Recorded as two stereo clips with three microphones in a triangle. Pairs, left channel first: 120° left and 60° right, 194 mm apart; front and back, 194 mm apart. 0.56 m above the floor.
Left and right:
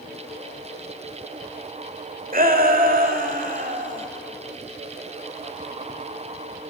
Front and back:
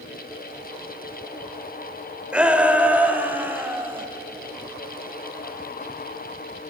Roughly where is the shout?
Right.